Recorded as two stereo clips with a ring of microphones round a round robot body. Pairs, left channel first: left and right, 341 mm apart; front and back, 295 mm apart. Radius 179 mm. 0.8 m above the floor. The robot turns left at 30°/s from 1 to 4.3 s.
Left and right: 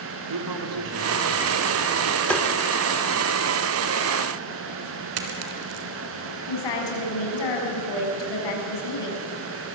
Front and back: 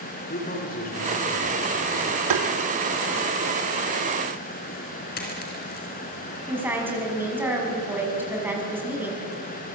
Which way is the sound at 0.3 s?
65° right.